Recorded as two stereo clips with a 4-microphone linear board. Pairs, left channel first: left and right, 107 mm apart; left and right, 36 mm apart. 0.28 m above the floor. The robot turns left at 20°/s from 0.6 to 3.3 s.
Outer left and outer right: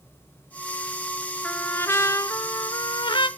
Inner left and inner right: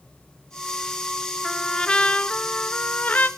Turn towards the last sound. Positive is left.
turn(degrees=125)